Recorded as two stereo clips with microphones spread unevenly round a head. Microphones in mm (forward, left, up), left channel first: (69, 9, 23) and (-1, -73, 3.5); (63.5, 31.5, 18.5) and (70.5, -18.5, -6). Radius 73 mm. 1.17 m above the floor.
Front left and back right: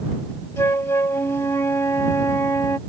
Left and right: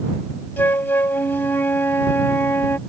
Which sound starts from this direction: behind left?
A flute, at 0.6 s.